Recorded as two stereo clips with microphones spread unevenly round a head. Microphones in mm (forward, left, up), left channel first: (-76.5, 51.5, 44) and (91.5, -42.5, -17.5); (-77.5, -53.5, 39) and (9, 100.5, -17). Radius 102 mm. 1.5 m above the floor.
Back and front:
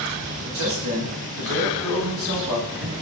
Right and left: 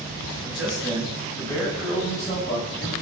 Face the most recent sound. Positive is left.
turn(degrees=-50)